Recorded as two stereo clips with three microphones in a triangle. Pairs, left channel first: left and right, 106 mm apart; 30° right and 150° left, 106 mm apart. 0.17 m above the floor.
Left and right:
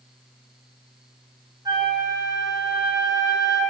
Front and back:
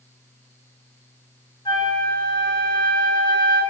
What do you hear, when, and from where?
1.6 s a flute: 55° right, 2.0 m